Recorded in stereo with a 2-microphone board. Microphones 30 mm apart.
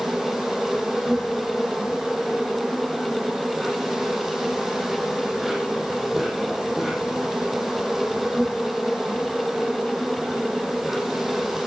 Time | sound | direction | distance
0.0 | an insect | 15° right (ahead or behind) | 5.5 m